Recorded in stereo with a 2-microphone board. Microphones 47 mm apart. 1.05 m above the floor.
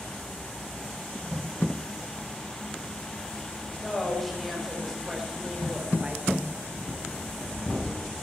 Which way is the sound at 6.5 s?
15° left (ahead or behind).